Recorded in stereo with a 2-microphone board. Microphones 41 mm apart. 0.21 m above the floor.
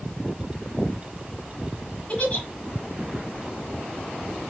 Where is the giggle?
30° left (ahead or behind), 1.2 m.